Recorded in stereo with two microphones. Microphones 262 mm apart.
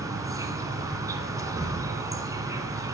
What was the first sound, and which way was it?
An insect, 15° right (ahead or behind).